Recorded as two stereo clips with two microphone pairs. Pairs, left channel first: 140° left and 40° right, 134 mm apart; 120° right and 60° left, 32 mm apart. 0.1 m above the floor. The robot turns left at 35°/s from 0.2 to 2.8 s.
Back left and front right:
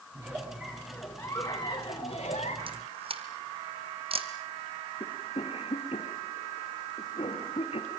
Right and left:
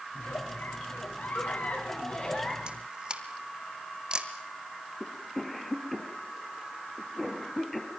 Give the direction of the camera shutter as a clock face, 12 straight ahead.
12 o'clock.